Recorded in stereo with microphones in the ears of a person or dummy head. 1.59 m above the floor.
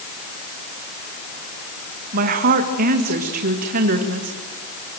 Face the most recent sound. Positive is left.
turn(degrees=-45)  # may be behind; listen again after turning